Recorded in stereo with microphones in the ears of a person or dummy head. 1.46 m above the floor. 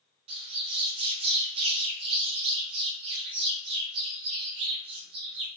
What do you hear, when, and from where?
0.3 s a bird: 35° right (ahead or behind), 1.1 m